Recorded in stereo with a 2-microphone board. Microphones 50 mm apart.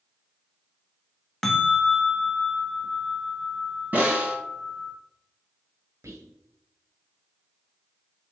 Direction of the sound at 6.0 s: 80° right.